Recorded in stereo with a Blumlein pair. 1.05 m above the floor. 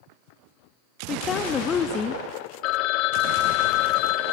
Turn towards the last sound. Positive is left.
turn(degrees=40)